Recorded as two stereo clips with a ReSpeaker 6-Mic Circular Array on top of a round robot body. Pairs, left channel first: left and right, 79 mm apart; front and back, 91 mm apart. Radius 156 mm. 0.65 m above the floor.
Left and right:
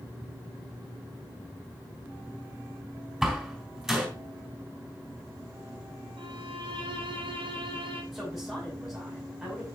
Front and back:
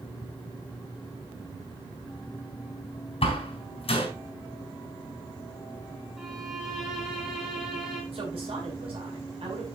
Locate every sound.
3.2 s a door slam: 5° right, 4 m
6.2 s a violin: 95° right, 1.5 m
8.1 s a woman speaking: 175° right, 6 m